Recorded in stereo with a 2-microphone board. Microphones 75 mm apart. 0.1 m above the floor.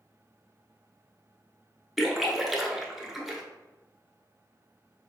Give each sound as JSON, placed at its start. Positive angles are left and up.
{"t": 2.0, "sound": "a splash", "side_deg": 0, "distance_m": 0.7}